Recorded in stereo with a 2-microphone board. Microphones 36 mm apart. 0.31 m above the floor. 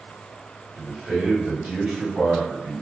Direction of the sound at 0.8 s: 25° right (ahead or behind).